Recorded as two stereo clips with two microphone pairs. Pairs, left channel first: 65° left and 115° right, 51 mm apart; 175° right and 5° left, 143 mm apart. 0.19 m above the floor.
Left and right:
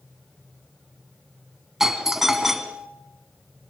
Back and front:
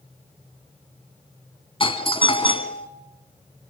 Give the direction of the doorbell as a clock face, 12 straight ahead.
6 o'clock.